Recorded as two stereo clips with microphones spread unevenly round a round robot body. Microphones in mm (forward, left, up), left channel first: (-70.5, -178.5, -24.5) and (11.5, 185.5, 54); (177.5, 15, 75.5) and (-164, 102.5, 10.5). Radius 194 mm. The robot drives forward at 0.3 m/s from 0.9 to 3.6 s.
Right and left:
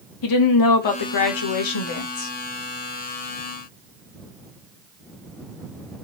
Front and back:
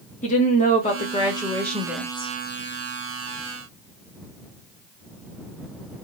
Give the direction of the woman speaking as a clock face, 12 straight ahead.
3 o'clock.